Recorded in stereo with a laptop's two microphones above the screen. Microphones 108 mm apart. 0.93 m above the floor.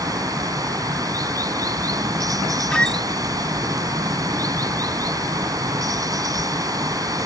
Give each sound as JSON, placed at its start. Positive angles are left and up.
{"t": 0.0, "sound": "running water", "side_deg": -35}
{"t": 2.7, "sound": "a squeak", "side_deg": 10}